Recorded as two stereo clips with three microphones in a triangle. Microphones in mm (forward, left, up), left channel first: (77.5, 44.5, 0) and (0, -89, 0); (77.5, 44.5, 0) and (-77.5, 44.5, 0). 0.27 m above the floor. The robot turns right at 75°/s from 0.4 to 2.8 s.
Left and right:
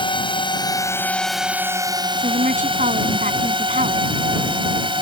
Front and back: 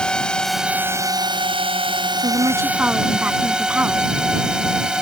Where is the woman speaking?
145° right; by 4.1 s 100° right.